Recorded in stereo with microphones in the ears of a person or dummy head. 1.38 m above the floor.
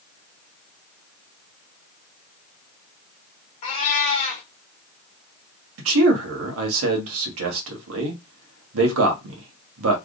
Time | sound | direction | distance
3.6 | a cat meowing | 35° left (ahead or behind) | 1.3 m
5.8 | a man speaking | 80° right | 1.4 m